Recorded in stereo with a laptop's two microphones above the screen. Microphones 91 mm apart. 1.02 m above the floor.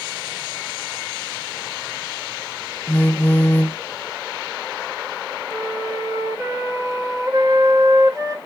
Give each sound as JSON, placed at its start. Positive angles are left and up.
{"t": 2.9, "sound": "a phone buzzing", "side_deg": 20, "distance_m": 0.7}
{"t": 5.5, "sound": "a flute", "side_deg": -45, "distance_m": 4.0}